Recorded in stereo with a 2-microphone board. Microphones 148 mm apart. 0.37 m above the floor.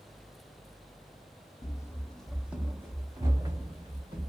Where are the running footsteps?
30° left (ahead or behind), 0.5 m; by 4.3 s 35° right (ahead or behind), 1.5 m.